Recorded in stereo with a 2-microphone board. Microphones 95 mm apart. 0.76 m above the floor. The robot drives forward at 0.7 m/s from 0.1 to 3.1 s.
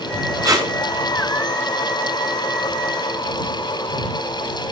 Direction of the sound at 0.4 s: 40° right (ahead or behind).